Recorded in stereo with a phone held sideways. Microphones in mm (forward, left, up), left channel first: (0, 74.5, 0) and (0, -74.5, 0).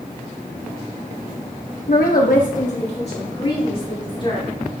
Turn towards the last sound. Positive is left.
turn(degrees=35)  # may be behind; listen again after turning